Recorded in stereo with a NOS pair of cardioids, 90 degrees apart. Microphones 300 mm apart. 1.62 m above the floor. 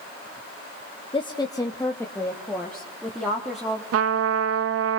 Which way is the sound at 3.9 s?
55° right.